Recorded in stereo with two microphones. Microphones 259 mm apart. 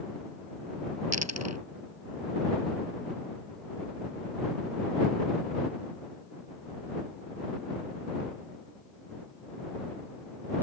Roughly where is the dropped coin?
Right.